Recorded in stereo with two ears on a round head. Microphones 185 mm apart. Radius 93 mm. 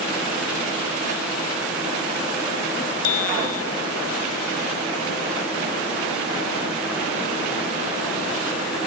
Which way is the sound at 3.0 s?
80° left.